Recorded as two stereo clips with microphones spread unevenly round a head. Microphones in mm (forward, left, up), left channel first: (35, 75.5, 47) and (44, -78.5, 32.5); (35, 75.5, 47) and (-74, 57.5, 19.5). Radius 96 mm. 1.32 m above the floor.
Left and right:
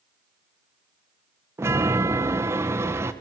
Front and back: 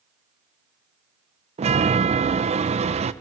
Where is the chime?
160° right, 1.1 m.